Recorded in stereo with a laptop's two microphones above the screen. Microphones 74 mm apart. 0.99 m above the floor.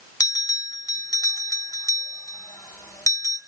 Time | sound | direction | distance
0.2 | a bell | 60° left (ahead or behind) | 2 m